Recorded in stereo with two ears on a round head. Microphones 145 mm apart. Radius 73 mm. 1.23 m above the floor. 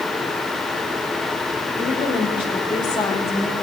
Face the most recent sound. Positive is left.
turn(degrees=15)  # may be behind; listen again after turning